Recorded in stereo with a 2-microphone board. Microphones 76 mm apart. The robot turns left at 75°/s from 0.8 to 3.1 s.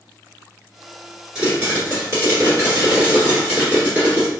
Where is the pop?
15° right, 1.5 m; by 4.3 s 145° right, 1.5 m.